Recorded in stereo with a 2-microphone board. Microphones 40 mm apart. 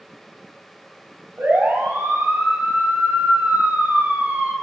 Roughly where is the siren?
Right.